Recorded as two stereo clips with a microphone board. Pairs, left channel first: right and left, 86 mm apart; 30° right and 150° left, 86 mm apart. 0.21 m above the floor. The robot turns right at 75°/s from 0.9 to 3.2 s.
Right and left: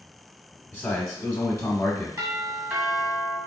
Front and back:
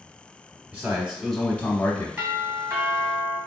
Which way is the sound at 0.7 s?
140° right.